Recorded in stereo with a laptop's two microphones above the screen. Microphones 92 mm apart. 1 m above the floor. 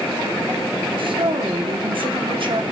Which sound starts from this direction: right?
A woman speaking, at 1.0 s.